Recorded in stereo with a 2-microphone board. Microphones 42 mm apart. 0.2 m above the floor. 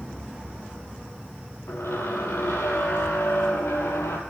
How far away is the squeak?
About 1.2 m.